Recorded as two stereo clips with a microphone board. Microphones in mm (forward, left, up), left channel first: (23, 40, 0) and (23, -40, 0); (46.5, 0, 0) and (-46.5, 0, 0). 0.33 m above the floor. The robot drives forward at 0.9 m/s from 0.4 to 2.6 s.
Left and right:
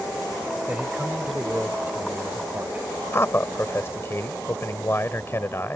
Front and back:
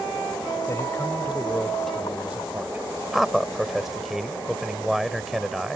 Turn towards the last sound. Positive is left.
turn(degrees=95)